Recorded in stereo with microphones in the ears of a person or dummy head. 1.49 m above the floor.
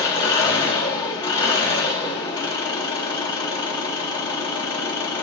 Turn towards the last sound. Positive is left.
turn(degrees=20)  # may be behind; listen again after turning